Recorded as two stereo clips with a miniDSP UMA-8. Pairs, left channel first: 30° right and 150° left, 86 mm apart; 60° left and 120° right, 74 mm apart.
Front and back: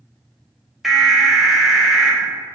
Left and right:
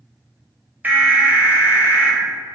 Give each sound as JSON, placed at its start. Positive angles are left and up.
{"t": 0.8, "sound": "an alarm", "azimuth_deg": -125, "distance_m": 0.8}